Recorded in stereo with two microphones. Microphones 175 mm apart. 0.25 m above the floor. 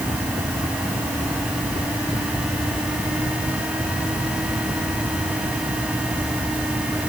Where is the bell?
I don't hear a bell.